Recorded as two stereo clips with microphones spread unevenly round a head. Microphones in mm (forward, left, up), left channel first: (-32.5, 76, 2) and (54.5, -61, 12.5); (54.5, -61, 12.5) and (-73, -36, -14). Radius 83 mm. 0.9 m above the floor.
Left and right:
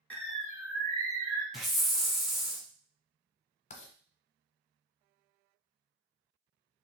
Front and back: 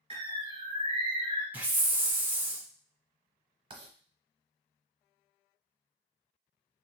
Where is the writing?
120° left, 0.8 m.